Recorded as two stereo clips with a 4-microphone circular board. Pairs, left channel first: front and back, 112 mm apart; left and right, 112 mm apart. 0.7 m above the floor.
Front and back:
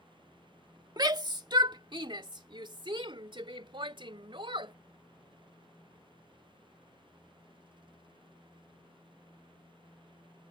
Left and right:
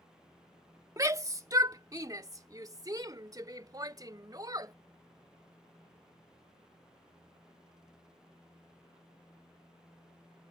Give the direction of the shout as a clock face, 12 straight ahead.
5 o'clock.